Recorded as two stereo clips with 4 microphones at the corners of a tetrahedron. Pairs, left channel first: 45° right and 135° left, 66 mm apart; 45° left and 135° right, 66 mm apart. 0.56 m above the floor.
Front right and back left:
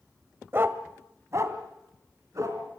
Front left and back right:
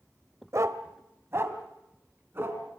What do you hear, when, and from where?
0.5 s a dog barking: 170° right, 1.0 m; by 2.6 s 175° left, 3 m